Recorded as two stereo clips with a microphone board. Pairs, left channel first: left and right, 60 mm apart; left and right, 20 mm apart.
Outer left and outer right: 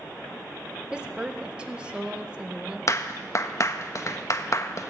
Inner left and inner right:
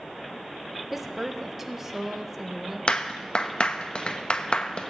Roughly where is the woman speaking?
Centre.